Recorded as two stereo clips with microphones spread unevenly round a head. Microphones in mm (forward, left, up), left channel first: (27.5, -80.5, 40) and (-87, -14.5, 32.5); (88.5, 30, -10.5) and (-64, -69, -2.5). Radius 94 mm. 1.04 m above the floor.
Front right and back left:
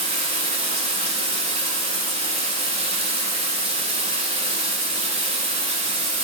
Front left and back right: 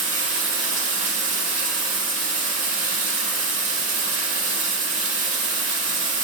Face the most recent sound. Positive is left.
turn(degrees=-170)